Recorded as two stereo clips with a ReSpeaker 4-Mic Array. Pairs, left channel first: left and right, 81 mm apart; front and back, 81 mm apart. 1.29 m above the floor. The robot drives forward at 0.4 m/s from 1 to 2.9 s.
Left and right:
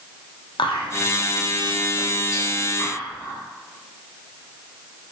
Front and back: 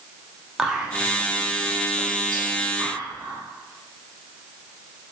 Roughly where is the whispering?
Left.